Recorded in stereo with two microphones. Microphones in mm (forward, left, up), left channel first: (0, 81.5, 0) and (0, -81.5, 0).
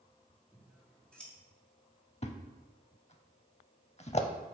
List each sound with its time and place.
0.5 s scissors: 5° left (ahead or behind), 1.5 m
2.2 s a thud: 40° left (ahead or behind), 0.6 m